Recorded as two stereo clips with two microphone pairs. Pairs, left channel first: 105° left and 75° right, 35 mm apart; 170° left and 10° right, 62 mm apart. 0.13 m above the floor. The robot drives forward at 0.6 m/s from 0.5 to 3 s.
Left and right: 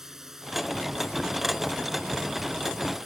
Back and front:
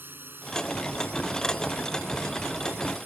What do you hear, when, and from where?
0.0 s a drone: 5° right